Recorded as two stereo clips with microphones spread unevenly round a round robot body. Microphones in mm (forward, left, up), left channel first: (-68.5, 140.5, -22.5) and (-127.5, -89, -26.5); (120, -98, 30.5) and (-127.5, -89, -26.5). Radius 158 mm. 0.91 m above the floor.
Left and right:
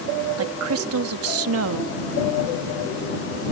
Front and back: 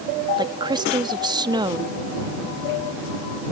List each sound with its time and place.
0.4 s a woman speaking: 115° right